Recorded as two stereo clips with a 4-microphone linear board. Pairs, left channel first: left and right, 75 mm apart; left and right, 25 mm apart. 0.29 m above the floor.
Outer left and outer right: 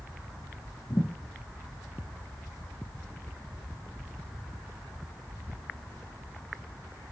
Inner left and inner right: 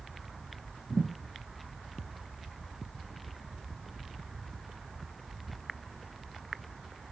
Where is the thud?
55° left (ahead or behind), 4 m.